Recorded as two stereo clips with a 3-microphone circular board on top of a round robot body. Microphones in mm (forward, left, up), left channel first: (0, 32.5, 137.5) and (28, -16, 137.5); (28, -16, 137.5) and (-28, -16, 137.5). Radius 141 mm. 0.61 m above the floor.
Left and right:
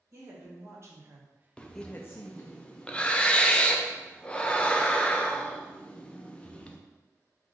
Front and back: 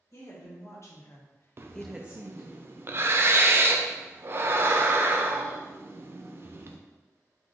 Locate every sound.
0.1 s a woman speaking: 30° right, 1.9 m; by 2.6 s 135° left, 1.0 m
1.6 s breathing: straight behind, 0.6 m